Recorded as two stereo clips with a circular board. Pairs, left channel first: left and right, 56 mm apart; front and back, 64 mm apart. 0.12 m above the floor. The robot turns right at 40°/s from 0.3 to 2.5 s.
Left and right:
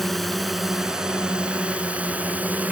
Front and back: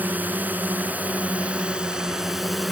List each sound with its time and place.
0.0 s a drone: 175° left; by 2.7 s 95° right